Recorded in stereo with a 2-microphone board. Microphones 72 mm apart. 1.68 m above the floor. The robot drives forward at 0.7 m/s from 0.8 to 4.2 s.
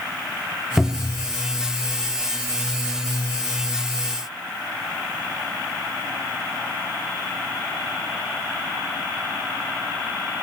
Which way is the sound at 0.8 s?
5° right (ahead or behind).